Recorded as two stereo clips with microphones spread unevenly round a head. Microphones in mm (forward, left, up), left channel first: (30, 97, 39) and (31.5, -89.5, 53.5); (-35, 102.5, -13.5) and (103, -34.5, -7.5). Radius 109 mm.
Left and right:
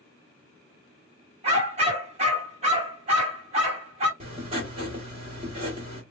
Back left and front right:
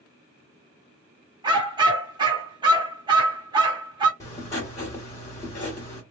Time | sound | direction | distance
1.4 | a dog barking | 90° right | 0.9 m
4.2 | writing | 150° right | 1.3 m